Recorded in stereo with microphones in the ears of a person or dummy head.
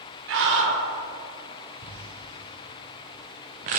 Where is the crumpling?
35° right (ahead or behind), 0.7 m.